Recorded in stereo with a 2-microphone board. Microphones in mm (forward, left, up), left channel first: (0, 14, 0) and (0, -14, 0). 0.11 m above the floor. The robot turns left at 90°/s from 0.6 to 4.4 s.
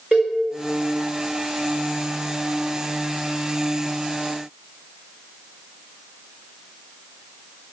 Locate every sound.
0.1 s a cowbell: 20° right (ahead or behind), 2.5 m